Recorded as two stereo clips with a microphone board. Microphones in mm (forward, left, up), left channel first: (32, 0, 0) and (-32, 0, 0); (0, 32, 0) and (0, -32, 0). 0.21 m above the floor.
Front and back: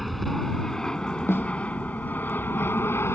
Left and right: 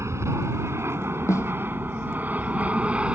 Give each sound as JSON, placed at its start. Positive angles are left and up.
{"t": 0.0, "sound": "an aircraft", "azimuth_deg": -90}
{"t": 1.3, "sound": "a snare drum", "azimuth_deg": 50}